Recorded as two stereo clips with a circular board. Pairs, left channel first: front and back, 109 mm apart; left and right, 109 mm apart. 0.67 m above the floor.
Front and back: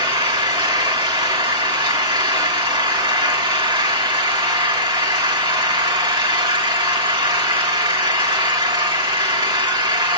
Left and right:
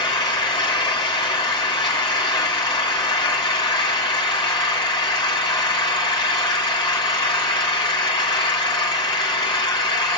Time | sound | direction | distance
0.0 | an engine running | 135° left | 3 m